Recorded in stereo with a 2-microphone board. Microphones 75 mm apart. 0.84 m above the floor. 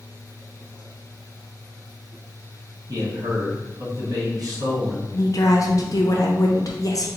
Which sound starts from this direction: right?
A man speaking, at 2.9 s.